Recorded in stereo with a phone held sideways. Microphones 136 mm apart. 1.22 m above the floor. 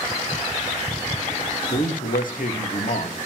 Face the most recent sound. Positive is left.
turn(degrees=85)